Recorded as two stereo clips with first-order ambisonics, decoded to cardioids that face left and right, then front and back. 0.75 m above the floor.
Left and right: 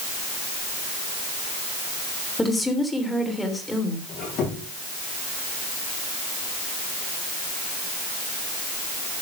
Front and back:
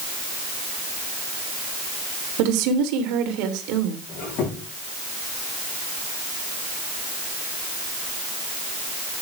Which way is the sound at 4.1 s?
45° left.